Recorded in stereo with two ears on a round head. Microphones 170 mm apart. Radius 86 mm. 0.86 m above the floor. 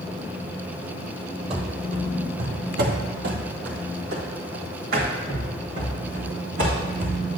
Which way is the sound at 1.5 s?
30° right (ahead or behind).